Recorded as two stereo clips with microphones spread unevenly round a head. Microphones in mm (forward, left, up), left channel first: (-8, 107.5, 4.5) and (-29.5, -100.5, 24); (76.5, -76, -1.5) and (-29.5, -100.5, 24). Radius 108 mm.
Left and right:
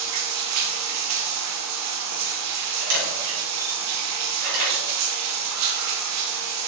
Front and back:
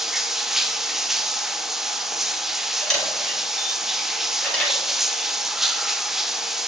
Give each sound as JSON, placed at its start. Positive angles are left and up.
{"t": 0.0, "sound": "running water", "azimuth_deg": -80, "distance_m": 0.8}
{"t": 2.8, "sound": "a camera shutter", "azimuth_deg": -70, "distance_m": 4.5}